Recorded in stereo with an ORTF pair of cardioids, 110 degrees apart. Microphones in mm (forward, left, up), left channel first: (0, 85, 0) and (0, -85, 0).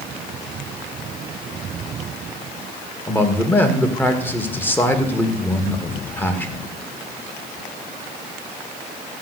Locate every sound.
3.1 s a man speaking: 10° left, 2.5 m